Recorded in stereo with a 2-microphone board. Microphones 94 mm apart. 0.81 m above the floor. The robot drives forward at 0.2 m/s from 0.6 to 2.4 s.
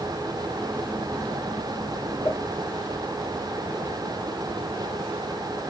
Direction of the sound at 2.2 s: 35° left (ahead or behind).